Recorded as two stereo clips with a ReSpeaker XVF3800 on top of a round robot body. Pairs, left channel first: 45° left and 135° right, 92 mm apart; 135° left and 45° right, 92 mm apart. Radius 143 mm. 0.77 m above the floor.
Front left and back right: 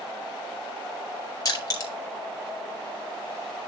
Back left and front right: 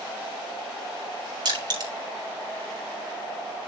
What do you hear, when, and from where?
1.4 s crushing: 5° right, 4 m